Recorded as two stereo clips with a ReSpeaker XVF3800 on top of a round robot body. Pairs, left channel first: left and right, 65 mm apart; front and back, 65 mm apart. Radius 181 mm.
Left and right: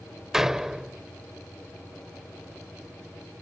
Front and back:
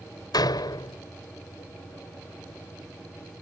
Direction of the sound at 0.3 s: 5° right.